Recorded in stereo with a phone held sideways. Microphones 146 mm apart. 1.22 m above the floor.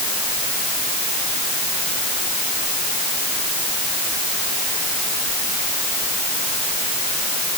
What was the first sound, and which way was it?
Only background noise.